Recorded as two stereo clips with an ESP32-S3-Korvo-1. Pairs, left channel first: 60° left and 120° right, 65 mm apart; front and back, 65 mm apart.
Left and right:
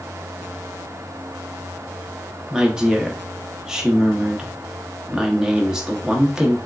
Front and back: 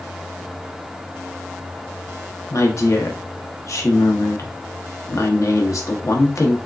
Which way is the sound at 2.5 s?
40° right.